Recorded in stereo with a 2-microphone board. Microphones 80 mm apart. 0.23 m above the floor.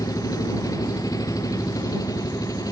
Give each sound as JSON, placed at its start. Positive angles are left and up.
{"t": 0.0, "sound": "an engine running", "side_deg": 50}